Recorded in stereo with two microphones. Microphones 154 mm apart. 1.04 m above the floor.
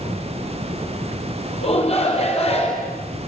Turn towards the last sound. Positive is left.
turn(degrees=40)  # may be behind; listen again after turning